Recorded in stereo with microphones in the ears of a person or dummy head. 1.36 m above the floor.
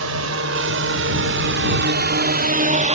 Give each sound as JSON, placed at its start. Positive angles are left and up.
{"t": 0.0, "sound": "a drone", "side_deg": -75}